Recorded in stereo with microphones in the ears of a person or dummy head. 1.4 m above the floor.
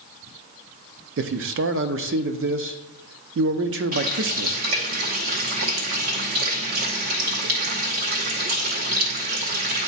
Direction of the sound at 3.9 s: 50° right (ahead or behind).